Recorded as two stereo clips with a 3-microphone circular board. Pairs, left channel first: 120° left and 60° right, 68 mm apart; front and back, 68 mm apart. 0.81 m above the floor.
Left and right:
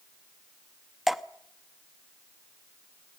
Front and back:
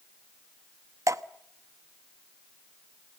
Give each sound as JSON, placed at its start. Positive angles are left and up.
{"t": 1.1, "sound": "dripping", "azimuth_deg": -150, "distance_m": 0.9}